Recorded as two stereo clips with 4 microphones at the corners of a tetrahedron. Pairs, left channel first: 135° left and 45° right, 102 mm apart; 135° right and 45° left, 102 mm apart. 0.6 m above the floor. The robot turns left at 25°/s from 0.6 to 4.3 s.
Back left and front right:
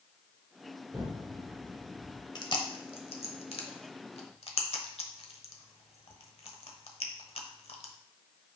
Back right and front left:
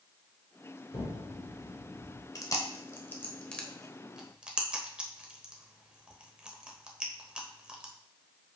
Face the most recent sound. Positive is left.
turn(degrees=125)